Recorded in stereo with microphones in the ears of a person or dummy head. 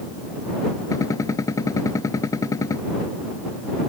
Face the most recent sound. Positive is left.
turn(degrees=20)  # may be behind; listen again after turning